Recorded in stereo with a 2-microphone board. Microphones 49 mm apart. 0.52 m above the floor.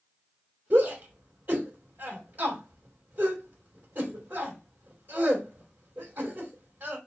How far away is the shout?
About 2.5 m.